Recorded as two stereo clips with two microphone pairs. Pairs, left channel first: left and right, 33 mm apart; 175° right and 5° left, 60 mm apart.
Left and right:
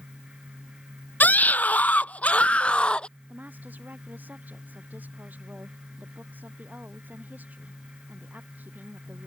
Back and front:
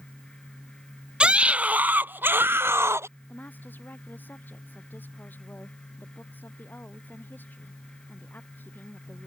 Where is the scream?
75° left; by 3.1 s 35° left.